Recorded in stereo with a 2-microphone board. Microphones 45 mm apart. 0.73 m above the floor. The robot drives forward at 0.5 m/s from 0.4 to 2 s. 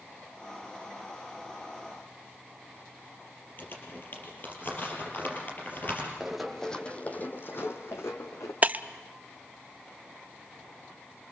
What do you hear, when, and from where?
3.6 s crumpling: 45° left (ahead or behind), 5 m
6.2 s running footsteps: 5° right (ahead or behind), 1.8 m; by 8.5 s 75° left (ahead or behind), 3 m
8.6 s breaking glass: 35° right (ahead or behind), 0.5 m